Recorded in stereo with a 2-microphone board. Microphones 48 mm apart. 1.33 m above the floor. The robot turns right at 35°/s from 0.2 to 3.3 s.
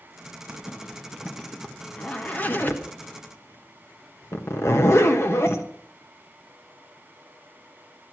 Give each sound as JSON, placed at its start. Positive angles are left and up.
{"t": 0.5, "sound": "a zipper", "side_deg": -30, "distance_m": 1.3}